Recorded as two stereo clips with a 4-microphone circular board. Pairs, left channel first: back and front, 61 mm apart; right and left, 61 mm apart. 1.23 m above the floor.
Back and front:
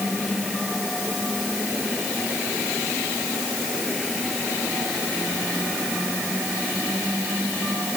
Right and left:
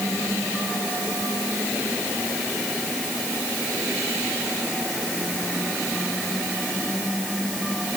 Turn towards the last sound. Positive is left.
No sound to turn to.